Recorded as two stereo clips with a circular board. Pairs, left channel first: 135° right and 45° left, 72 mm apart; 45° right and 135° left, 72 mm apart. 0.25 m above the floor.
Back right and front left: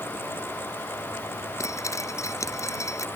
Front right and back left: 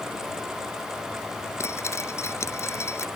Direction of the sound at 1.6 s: 95° right.